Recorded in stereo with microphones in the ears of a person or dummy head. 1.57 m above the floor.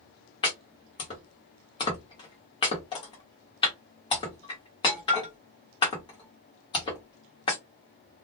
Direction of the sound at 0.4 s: 25° left (ahead or behind).